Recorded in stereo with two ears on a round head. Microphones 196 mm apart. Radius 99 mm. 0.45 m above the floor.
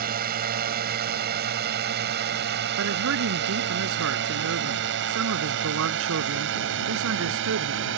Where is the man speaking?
70° right (ahead or behind).